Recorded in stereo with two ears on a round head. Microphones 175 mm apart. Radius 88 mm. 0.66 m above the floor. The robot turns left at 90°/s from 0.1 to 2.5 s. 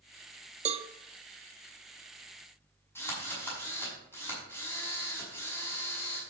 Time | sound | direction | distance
0.7 | a cowbell | 35° right (ahead or behind) | 0.5 m
3.0 | a drill | 10° left (ahead or behind) | 6 m